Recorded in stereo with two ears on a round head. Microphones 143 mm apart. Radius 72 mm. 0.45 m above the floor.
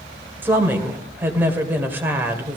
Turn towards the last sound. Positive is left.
turn(degrees=-15)  # may be behind; listen again after turning